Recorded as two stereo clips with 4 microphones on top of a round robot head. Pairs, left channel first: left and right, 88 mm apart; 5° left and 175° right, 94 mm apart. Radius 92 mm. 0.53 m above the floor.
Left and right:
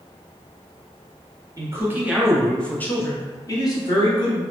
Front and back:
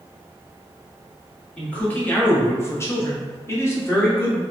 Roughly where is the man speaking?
Ahead right.